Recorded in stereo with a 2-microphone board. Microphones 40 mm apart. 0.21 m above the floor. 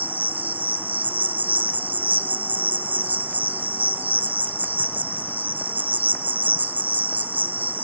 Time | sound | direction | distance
0.0 | an insect | 45° right (ahead or behind) | 0.7 m